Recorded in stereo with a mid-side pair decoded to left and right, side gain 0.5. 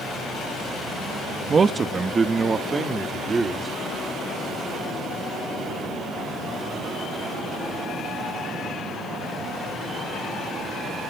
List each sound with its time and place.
1.5 s a man speaking: 35° right, 0.9 m; by 3.7 s 30° right, 2.5 m